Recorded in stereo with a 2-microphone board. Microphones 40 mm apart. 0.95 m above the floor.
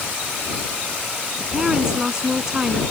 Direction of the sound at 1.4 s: 15° right (ahead or behind).